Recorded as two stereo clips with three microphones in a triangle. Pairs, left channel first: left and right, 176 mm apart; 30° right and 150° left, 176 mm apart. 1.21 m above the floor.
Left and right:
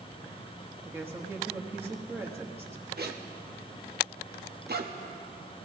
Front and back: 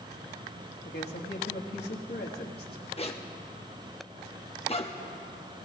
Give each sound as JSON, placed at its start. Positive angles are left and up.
{"t": 0.8, "sound": "a woman speaking", "azimuth_deg": -15, "distance_m": 1.3}
{"t": 3.0, "sound": "a zipper", "azimuth_deg": -85, "distance_m": 1.0}